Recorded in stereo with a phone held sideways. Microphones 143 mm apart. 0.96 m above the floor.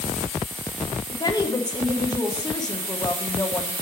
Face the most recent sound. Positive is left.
turn(degrees=30)  # may be behind; listen again after turning